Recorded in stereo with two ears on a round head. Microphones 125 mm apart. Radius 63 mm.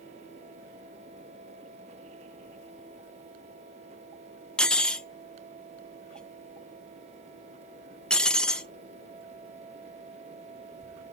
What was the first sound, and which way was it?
Cutlery clinking, 5° left (ahead or behind).